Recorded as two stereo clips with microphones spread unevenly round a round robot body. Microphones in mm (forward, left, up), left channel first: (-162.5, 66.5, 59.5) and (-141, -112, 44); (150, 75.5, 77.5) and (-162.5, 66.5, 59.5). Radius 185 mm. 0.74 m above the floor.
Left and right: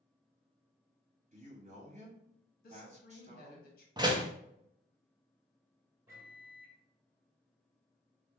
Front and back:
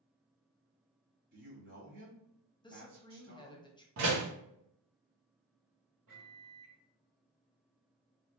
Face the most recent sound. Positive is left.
turn(degrees=-155)